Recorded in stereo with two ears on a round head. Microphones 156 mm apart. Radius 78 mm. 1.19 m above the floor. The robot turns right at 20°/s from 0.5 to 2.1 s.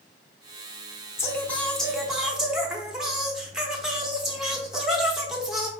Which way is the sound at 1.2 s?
15° left (ahead or behind).